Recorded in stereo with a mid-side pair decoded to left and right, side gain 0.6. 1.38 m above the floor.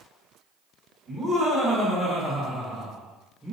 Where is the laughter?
25° left, 1.7 m; by 3.5 s 15° right, 0.7 m.